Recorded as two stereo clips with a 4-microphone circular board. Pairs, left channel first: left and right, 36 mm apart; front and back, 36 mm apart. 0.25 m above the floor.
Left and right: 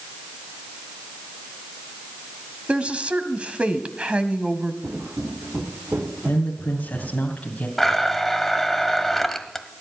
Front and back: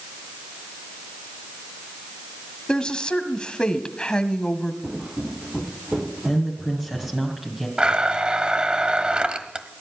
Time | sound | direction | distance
2.7 | a woman speaking | 55° right | 1.5 m
4.8 | footsteps | 110° right | 3 m
6.2 | a woman speaking | 110° left | 2.0 m
7.8 | a blender | 170° left | 1.1 m